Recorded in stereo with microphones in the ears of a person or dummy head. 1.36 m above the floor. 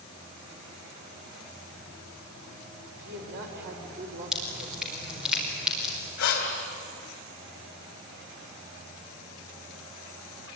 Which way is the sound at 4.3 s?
Centre (ahead or behind).